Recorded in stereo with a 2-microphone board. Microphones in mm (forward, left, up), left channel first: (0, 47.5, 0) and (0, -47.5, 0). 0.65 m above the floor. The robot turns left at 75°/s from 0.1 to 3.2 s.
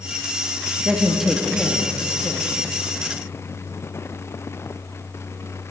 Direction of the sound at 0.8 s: 15° right (ahead or behind).